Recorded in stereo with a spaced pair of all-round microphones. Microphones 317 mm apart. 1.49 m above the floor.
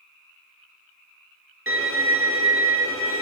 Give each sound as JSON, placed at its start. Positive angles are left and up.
{"t": 1.7, "sound": "a violin", "side_deg": -40, "distance_m": 1.2}